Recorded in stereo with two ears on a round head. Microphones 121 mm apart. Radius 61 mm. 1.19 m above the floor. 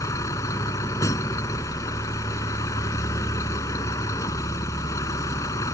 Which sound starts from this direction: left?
A vehicle, at 0.0 s.